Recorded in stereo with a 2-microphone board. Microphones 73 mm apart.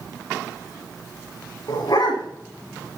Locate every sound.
1.7 s a dog barking: 70° left (ahead or behind), 4.5 m